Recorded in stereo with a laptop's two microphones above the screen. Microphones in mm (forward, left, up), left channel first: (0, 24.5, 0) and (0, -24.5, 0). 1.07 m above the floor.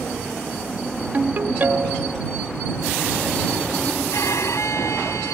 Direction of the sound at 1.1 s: 40° right (ahead or behind).